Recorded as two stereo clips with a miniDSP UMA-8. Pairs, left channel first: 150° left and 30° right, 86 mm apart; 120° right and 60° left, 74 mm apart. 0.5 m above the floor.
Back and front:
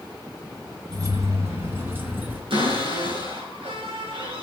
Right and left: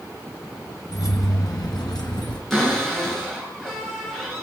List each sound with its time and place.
0.9 s keys jangling: 80° right, 2.5 m; by 2.4 s 100° right, 3.5 m
2.5 s a cupboard door: 35° right, 6 m